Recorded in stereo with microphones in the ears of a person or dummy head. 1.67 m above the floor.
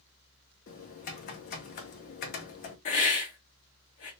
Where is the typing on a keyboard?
45° left (ahead or behind), 0.8 m.